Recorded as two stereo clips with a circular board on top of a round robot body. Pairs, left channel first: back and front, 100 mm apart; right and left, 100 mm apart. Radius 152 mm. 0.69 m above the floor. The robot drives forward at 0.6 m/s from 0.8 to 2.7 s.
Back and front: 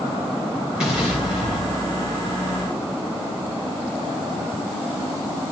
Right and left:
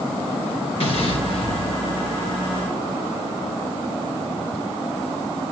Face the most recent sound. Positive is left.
turn(degrees=-100)